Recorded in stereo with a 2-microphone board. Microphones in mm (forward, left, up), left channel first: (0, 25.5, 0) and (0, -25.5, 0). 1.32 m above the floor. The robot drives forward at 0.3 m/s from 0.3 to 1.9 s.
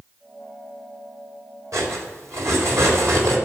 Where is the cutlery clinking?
85° right, 3.5 m; by 3.4 s 80° right, 3.5 m.